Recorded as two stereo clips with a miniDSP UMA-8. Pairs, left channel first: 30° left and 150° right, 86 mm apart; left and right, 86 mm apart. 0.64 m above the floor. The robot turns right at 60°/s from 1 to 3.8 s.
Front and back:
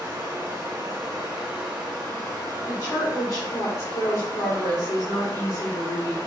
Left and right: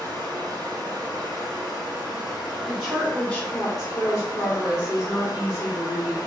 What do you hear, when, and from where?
0.0 s running water: 110° right, 2.0 m; by 6.3 s 55° left, 2.0 m
2.7 s a woman speaking: 15° right, 2.0 m; by 6.2 s 55° left, 2.0 m